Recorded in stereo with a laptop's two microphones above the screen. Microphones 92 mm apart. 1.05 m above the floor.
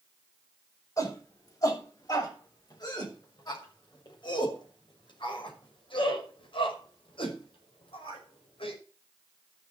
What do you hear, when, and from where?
1.0 s a shout: 40° left (ahead or behind), 7.5 m; by 8.8 s 80° left, 5.5 m